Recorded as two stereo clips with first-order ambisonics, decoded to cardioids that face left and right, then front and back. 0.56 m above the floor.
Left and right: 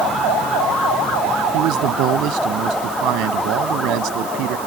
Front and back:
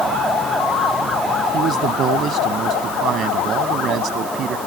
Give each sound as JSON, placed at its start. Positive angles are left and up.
{"t": 1.5, "sound": "a man speaking", "azimuth_deg": -125}